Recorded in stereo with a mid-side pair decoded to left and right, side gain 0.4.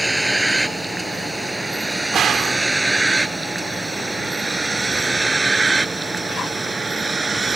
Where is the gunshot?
70° right.